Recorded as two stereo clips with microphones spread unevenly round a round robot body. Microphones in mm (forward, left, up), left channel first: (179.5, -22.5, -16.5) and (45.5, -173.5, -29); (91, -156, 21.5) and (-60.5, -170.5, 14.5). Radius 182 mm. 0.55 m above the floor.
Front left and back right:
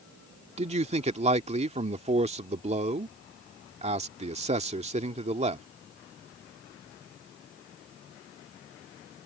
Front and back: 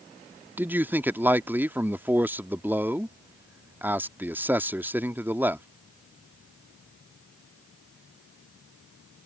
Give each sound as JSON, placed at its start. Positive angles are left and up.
{"t": 0.6, "sound": "a man speaking", "azimuth_deg": -105}